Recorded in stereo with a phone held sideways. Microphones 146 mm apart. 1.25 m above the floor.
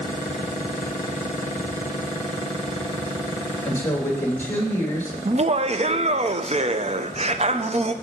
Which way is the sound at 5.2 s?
45° right (ahead or behind).